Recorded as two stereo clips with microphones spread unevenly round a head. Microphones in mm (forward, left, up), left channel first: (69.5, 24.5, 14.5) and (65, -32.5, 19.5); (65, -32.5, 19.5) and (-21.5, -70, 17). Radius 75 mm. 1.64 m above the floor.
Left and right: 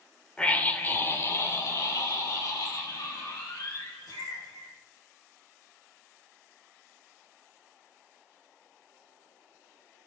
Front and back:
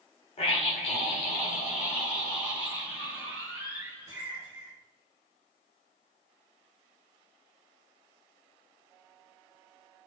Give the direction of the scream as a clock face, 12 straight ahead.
12 o'clock.